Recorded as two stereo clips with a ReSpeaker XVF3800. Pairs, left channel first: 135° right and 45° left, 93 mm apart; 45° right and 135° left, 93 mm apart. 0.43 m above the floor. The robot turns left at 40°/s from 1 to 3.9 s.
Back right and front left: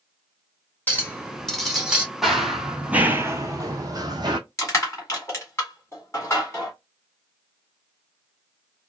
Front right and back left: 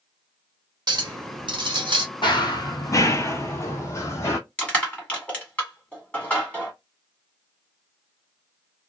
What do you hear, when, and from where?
0.9 s a clink: 160° left, 0.8 m; by 2.0 s 120° left, 0.8 m
2.2 s running footsteps: 40° right, 0.7 m; by 4.4 s 15° left, 1.0 m
4.6 s crushing: 110° right, 1.6 m